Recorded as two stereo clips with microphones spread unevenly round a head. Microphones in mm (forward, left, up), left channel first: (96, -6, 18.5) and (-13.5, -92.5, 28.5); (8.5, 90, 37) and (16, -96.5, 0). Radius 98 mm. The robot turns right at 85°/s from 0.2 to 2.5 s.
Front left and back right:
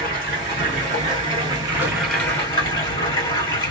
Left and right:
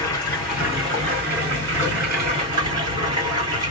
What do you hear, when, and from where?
0.0 s running water: 145° left, 1.8 m; by 3.7 s 20° right, 1.8 m